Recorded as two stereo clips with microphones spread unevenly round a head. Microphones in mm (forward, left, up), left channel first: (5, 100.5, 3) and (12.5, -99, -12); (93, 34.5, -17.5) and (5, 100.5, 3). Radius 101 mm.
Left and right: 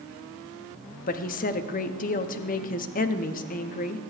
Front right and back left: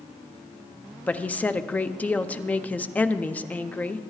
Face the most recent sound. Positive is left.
turn(degrees=40)